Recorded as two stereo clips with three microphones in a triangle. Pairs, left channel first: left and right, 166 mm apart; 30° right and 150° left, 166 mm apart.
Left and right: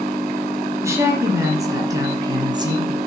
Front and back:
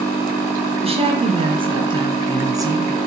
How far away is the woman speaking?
About 3 m.